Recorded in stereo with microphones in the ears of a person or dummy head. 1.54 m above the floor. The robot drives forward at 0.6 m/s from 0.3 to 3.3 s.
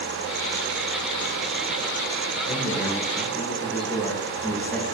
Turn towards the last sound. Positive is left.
turn(degrees=0)  # may be behind; listen again after turning